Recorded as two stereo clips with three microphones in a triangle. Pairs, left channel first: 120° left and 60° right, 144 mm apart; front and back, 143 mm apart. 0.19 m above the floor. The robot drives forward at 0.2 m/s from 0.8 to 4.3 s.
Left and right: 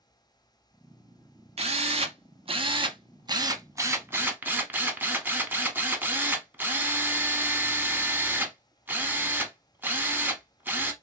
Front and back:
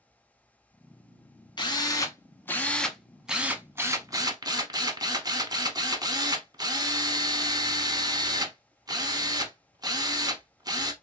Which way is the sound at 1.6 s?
45° right.